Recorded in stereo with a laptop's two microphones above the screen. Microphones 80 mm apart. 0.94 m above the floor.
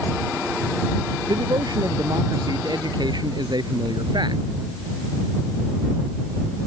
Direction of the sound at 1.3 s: 60° right (ahead or behind).